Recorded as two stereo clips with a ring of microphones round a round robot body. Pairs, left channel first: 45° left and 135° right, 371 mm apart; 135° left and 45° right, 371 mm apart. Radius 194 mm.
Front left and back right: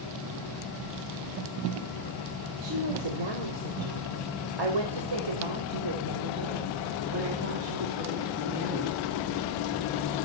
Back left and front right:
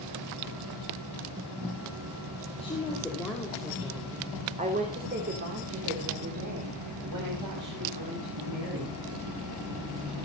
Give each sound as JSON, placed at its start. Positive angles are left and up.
{"t": 2.6, "sound": "a woman speaking", "azimuth_deg": -150, "distance_m": 4.0}